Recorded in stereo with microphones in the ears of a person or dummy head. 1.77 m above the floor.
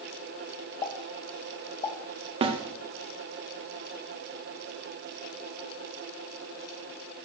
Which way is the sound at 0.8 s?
20° left (ahead or behind).